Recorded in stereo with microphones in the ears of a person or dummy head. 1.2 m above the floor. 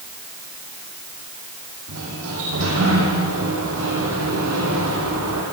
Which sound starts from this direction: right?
A sliding door, at 1.9 s.